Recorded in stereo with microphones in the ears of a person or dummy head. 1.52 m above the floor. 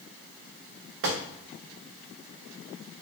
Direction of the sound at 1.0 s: 65° right (ahead or behind).